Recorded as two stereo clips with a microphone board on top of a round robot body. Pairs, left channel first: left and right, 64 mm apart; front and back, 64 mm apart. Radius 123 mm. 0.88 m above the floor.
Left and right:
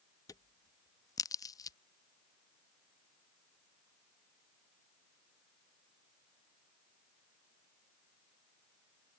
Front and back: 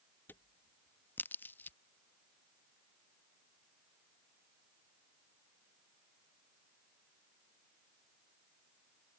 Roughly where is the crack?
Ahead left.